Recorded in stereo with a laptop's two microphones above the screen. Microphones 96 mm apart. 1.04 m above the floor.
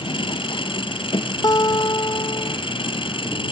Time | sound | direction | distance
0.0 | an engine running | 60° left (ahead or behind) | ?
1.4 | a guitar | 45° left (ahead or behind) | ?